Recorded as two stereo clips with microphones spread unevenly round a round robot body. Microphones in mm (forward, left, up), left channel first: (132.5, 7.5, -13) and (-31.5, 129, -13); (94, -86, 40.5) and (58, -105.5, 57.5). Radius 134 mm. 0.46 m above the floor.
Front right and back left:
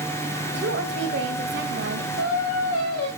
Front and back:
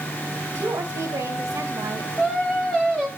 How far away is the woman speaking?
About 2 m.